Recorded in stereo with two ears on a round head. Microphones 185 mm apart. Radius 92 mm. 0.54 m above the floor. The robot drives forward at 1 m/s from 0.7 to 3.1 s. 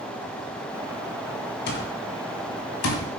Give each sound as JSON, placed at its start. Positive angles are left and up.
{"t": 1.7, "sound": "an alarm clock", "side_deg": 55, "distance_m": 3.0}